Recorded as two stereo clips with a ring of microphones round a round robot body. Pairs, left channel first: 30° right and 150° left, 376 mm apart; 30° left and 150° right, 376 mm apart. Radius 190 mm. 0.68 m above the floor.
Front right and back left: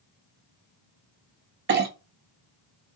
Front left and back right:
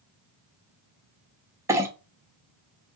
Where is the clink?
135° left, 0.5 m.